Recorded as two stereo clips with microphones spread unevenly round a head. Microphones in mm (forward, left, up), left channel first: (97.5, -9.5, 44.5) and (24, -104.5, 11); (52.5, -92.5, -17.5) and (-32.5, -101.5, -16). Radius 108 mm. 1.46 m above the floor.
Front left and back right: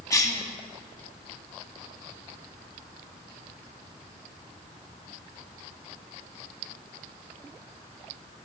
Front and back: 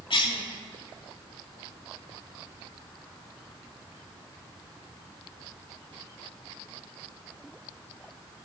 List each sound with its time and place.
0.1 s a cough: 10° right, 2.5 m